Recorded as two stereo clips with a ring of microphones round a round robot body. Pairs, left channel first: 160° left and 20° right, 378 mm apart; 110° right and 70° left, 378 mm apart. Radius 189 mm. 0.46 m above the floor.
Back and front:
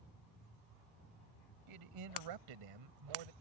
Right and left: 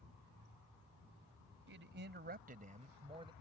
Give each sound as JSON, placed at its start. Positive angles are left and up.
{"t": 1.7, "sound": "a man speaking", "azimuth_deg": 10}